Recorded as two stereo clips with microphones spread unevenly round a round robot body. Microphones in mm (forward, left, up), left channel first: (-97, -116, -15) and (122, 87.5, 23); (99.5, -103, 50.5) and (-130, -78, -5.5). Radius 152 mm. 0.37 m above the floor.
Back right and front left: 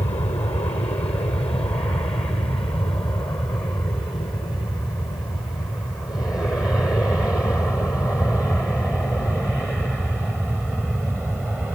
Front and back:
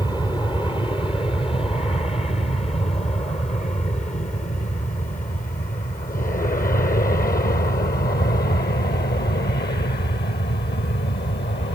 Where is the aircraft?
85° right; by 11.8 s 45° right.